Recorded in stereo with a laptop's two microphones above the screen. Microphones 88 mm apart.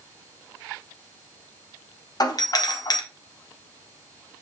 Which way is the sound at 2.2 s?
50° left (ahead or behind).